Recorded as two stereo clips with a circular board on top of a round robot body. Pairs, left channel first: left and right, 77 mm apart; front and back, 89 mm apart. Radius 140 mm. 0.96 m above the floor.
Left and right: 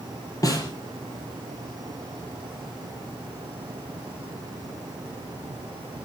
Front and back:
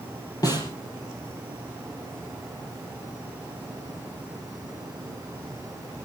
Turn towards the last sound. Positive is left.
turn(degrees=45)